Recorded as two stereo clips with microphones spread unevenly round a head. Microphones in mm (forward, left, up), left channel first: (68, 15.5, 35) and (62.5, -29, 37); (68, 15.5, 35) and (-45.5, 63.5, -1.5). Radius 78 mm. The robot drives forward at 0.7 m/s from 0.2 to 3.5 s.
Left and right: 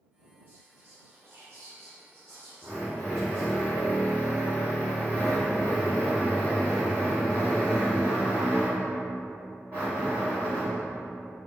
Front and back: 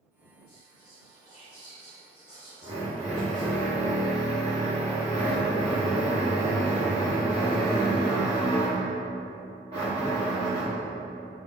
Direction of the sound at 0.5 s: 55° right.